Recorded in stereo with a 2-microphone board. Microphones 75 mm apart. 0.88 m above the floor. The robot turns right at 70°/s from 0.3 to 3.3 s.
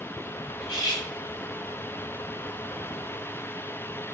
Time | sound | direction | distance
0.6 | cutlery clinking | 80° left | 0.9 m